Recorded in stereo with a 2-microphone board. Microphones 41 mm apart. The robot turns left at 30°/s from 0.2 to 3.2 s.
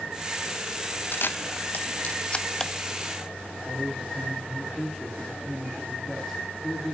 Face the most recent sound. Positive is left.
turn(degrees=5)  # may be behind; listen again after turning